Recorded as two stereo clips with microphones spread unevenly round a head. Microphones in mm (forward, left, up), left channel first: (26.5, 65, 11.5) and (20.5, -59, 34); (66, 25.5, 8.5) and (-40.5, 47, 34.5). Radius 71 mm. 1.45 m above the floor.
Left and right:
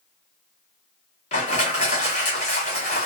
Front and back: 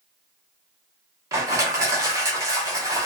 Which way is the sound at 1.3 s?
130° left.